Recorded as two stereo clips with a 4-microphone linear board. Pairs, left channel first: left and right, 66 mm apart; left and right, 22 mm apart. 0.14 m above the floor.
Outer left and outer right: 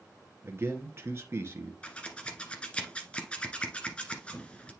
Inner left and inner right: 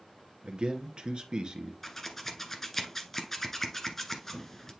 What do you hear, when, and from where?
0.4 s a man speaking: 40° right (ahead or behind), 1.9 m
1.8 s scissors: 15° left (ahead or behind), 1.3 m